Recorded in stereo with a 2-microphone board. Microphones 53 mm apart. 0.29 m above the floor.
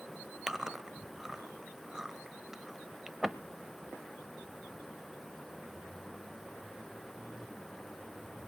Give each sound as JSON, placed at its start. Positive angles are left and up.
{"t": 0.5, "sound": "chewing", "side_deg": -10, "distance_m": 1.0}